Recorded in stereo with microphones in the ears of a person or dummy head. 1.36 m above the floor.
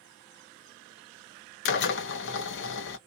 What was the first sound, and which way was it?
A drill, 60° left (ahead or behind).